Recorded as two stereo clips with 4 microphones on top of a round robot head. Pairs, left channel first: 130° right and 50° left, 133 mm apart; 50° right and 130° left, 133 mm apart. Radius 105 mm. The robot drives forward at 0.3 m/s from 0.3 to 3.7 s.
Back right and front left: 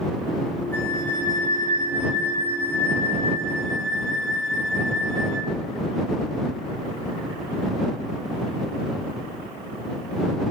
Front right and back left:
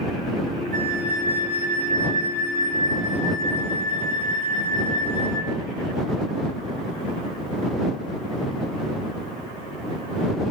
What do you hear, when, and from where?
0.7 s a flute: 155° left, 3 m; by 5.5 s 160° left, 4 m